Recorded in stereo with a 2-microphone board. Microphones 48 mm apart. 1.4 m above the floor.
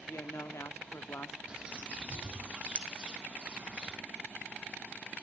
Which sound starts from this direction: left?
A woman speaking, at 0.1 s.